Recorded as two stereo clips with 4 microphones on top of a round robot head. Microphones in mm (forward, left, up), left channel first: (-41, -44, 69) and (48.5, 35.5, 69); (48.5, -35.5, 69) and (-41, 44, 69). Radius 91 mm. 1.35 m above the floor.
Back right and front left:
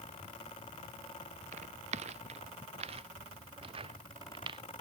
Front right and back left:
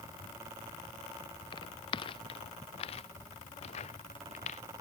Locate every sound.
1.5 s footsteps: 10° left; by 4.6 s 10° right